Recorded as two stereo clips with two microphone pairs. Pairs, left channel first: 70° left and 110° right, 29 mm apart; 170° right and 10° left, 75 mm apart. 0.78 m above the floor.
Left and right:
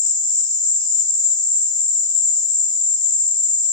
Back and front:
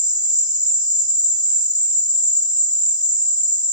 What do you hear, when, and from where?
0.0 s an insect: straight ahead, 2.5 m